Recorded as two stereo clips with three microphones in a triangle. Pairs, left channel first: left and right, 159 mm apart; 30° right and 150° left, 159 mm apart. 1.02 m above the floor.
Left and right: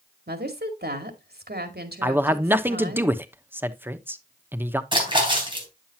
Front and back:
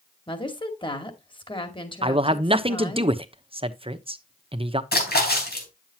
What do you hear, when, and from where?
0.3 s a woman speaking: 90° right, 2 m
2.0 s a man speaking: 165° right, 0.9 m
4.9 s a splash: 30° right, 3.5 m